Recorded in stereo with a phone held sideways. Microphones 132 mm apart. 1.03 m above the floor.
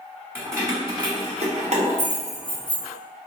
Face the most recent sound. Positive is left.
turn(degrees=-85)